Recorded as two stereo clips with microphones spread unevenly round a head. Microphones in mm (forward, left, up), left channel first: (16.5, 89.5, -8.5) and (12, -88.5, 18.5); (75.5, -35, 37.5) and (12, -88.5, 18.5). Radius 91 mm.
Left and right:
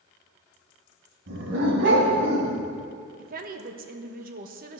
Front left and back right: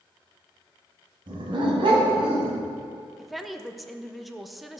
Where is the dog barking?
115° right, 2.5 m; by 2.6 s 135° right, 3 m.